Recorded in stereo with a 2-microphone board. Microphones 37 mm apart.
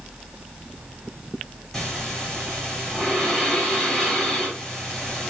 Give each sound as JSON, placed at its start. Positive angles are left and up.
{"t": 1.7, "sound": "breathing", "side_deg": 15, "distance_m": 1.9}